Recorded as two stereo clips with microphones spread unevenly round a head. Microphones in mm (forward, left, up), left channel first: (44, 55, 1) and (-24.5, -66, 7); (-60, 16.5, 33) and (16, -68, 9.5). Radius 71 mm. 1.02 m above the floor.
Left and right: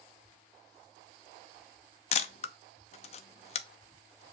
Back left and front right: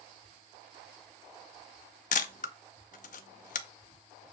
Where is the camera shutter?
110° left, 0.6 m.